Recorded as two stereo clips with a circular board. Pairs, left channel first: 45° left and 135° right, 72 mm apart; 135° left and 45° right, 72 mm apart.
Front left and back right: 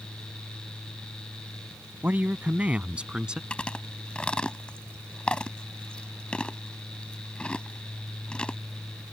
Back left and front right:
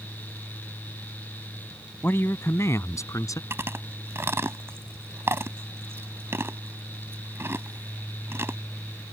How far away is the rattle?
I don't hear a rattle.